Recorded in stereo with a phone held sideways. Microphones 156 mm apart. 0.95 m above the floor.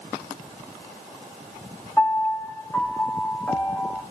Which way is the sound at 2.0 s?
15° left (ahead or behind).